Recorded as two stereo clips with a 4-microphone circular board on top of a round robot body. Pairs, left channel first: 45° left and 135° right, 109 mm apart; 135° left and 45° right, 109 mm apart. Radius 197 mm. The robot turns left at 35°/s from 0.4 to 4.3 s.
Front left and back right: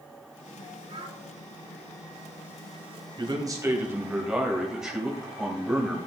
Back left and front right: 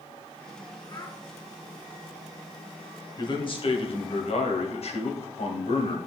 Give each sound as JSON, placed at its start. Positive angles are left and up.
{"t": 0.9, "sound": "a child speaking", "azimuth_deg": -170, "distance_m": 3.5}
{"t": 3.2, "sound": "a man speaking", "azimuth_deg": 180, "distance_m": 3.0}